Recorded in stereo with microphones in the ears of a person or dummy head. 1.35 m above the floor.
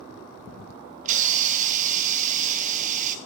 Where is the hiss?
40° right (ahead or behind), 1.1 m.